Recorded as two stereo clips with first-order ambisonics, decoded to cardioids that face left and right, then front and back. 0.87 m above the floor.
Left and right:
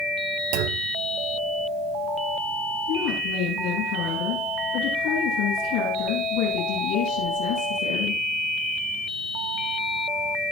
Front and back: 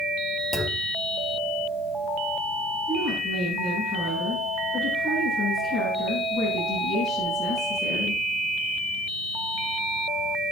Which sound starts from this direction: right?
A clunk, at 0.5 s.